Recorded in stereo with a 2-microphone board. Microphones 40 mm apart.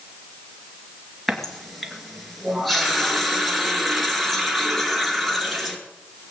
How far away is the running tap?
About 2 m.